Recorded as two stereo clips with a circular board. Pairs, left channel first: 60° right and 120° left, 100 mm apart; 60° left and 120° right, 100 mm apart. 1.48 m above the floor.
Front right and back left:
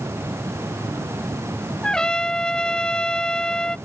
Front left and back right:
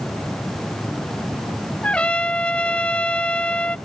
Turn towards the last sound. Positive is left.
turn(degrees=10)